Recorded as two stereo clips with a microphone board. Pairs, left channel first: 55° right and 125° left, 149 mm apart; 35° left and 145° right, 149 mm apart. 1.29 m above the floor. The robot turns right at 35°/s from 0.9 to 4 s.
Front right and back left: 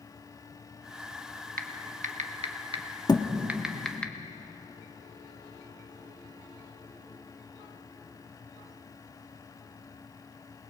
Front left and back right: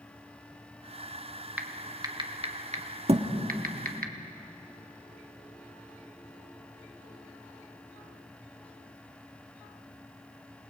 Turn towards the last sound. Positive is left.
turn(degrees=-80)